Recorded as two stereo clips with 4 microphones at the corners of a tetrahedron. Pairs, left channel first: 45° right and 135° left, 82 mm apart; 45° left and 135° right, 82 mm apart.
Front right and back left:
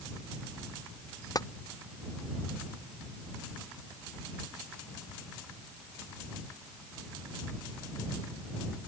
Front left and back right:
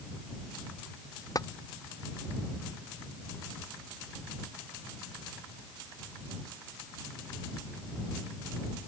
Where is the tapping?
Straight ahead.